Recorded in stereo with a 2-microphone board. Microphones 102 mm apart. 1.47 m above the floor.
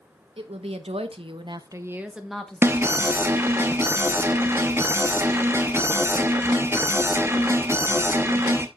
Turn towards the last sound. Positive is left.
turn(degrees=-25)  # may be behind; listen again after turning